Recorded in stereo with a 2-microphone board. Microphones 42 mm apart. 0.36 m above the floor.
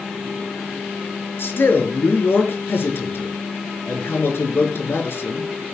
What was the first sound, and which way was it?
A man speaking, 65° left (ahead or behind).